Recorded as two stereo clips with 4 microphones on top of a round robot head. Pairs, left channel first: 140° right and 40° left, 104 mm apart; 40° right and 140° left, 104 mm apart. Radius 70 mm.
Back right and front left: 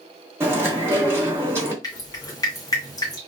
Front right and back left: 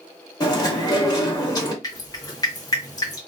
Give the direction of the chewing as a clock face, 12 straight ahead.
12 o'clock.